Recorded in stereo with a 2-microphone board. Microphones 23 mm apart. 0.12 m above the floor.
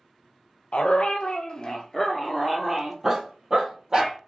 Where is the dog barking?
60° left (ahead or behind), 0.8 m; by 4.2 s 35° right (ahead or behind), 1.5 m.